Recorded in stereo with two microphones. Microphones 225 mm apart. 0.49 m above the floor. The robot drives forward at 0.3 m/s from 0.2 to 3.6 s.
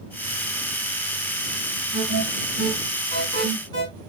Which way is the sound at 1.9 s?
70° right (ahead or behind).